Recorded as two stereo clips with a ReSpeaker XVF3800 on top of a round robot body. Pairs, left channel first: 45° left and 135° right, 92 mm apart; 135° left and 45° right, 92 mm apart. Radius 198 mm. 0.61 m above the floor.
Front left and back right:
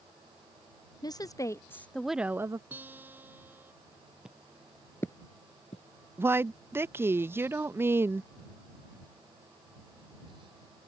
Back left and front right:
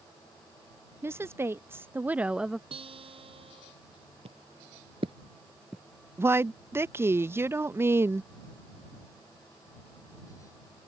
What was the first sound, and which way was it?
A woman speaking, 15° left.